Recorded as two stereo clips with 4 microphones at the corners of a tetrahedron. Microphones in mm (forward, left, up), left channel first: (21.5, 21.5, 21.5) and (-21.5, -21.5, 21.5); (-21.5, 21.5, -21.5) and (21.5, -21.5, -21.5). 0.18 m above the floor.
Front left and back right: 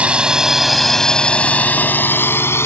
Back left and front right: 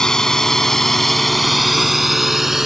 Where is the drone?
160° right; by 2.7 s 40° left.